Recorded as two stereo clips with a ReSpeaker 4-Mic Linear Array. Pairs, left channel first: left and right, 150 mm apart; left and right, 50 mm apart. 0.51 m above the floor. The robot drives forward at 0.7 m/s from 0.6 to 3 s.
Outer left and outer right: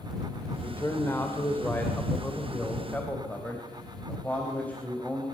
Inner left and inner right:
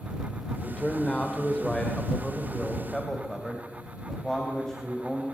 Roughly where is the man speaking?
Centre.